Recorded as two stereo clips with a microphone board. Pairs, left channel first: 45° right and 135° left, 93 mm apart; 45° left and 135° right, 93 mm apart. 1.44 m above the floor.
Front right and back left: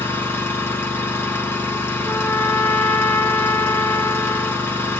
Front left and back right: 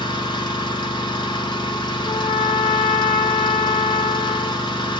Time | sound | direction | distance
0.0 | an engine running | 20° left | 1.1 m
2.0 | a trumpet | 30° left | 1.3 m